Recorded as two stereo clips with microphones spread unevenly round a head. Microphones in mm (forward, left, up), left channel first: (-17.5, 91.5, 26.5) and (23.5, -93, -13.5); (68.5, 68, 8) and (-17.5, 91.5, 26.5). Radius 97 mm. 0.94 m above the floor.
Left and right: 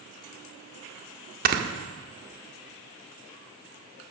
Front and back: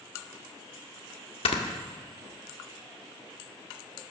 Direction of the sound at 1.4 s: 35° right.